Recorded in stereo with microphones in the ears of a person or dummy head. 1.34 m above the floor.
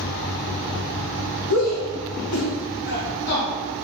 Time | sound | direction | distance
1.5 | a shout | 75° left (ahead or behind) | 1.7 m